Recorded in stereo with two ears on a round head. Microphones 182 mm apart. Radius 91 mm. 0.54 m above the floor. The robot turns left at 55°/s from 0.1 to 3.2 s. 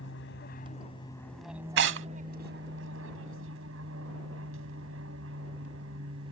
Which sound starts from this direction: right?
Tearing paper, at 1.8 s.